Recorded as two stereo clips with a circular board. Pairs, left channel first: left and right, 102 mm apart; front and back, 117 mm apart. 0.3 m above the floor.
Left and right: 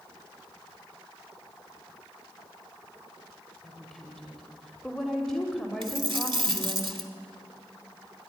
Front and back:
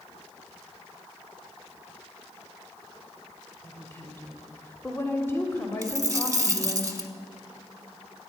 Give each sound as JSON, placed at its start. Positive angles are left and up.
{"t": 3.6, "sound": "a woman speaking", "azimuth_deg": 10, "distance_m": 1.3}
{"t": 5.8, "sound": "a dropped coin", "azimuth_deg": -120, "distance_m": 0.9}